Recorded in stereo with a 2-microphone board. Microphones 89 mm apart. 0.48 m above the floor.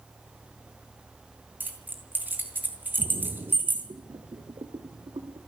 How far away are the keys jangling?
About 4 m.